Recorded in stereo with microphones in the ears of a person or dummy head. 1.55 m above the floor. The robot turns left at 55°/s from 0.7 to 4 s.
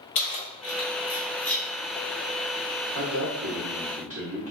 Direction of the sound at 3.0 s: 75° right (ahead or behind).